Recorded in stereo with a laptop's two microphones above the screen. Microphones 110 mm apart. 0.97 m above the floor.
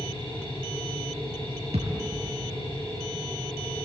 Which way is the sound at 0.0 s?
55° left (ahead or behind).